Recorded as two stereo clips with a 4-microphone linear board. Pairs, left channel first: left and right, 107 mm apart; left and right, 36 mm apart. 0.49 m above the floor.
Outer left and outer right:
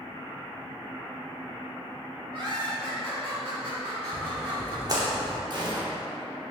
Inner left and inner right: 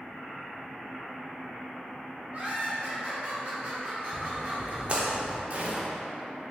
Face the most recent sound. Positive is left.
turn(degrees=-45)  # may be behind; listen again after turning